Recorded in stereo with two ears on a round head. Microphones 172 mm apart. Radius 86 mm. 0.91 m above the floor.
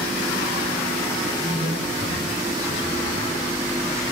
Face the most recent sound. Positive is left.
turn(degrees=30)  # may be behind; listen again after turning